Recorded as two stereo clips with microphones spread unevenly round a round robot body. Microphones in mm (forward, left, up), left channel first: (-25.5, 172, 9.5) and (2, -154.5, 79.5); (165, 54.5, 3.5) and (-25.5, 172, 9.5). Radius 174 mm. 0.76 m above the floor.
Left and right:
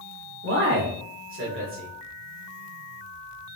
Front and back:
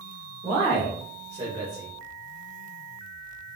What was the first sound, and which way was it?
A man speaking, 140° right.